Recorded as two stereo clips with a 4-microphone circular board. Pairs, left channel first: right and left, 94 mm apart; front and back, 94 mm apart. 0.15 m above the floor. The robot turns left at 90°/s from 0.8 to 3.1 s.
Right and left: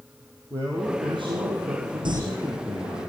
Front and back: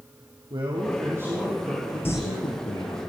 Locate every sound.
0.5 s a man speaking: 155° left, 5 m; by 3.0 s 50° right, 5 m
2.0 s crumpling: 65° left, 3.5 m; by 2.2 s 50° left, 3.5 m